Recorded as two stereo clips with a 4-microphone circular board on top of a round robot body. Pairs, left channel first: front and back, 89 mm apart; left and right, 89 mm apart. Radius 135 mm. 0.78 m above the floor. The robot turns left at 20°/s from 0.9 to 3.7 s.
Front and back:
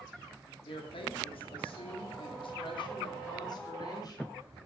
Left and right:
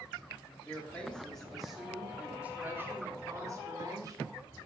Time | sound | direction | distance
0.6 | a woman speaking | 15° left | 2 m